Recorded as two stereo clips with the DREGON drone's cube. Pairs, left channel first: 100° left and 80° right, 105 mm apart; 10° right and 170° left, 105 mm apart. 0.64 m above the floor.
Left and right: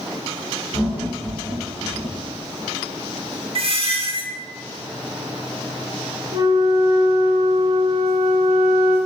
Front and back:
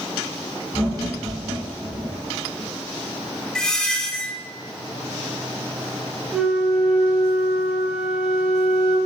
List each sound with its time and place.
0.7 s laughter: 65° left, 1.5 m
3.5 s a squeak: 95° right, 0.6 m
6.3 s a flute: 110° right, 0.6 m